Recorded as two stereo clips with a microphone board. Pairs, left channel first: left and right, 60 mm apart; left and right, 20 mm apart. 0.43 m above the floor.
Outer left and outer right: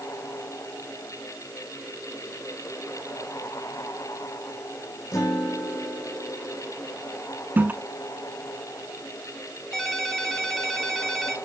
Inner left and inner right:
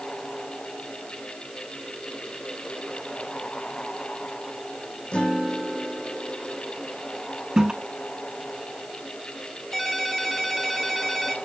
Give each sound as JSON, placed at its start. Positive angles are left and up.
{"t": 5.1, "sound": "a guitar", "side_deg": 60, "distance_m": 3.5}
{"t": 7.6, "sound": "a toilet flushing", "side_deg": -30, "distance_m": 0.7}
{"t": 9.7, "sound": "a ringtone", "side_deg": 5, "distance_m": 3.0}